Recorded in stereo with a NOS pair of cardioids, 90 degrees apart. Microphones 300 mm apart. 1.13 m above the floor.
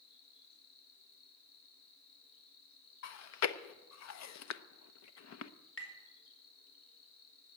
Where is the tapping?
45° left, 4 m.